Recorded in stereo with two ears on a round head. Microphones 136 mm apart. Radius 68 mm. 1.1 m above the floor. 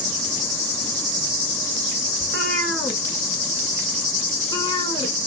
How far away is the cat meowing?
About 1.7 m.